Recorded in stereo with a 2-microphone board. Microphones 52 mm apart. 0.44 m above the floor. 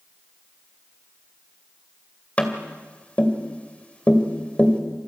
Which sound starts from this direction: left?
Tapping, at 2.4 s.